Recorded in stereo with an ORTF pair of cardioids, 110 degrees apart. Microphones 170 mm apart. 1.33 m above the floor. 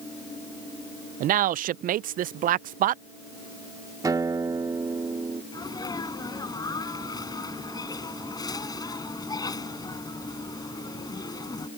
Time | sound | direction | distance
1.2 | a man speaking | 55° right | ?
4.0 | a guitar | 20° right | ?
5.5 | a sneeze | 20° left | ?